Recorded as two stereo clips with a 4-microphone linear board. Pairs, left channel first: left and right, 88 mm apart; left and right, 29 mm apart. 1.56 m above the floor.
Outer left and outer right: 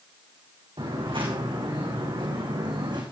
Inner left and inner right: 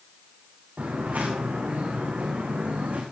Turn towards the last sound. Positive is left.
turn(degrees=-60)  # may be behind; listen again after turning